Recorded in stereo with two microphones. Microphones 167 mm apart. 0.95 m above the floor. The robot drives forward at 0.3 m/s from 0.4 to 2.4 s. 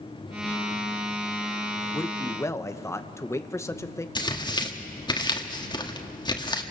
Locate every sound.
1.9 s a man speaking: 15° left (ahead or behind), 0.9 m; by 4.0 s 20° left (ahead or behind), 0.8 m
4.2 s tearing paper: 30° left (ahead or behind), 1.6 m